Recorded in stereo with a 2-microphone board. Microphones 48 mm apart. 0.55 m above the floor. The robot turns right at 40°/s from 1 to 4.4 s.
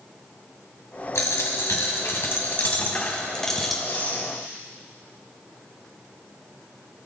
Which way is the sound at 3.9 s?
35° left (ahead or behind).